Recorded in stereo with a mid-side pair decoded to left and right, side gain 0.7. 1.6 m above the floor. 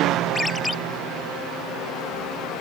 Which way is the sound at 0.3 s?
10° left.